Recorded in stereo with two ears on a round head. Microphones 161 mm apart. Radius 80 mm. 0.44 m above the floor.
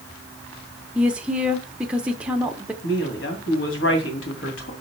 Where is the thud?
No thud in this recording.